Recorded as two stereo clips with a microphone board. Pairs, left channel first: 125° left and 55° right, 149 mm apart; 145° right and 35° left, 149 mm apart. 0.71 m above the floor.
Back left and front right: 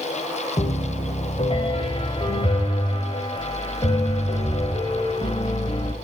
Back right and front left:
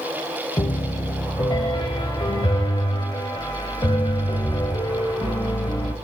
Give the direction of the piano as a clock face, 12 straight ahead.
7 o'clock.